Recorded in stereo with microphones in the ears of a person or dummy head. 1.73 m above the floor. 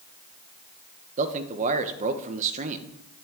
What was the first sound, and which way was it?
A man speaking, 35° right (ahead or behind).